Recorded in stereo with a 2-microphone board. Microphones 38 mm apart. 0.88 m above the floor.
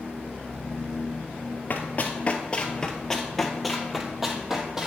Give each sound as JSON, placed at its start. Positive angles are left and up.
{"t": 1.7, "sound": "running footsteps", "side_deg": 50, "distance_m": 1.3}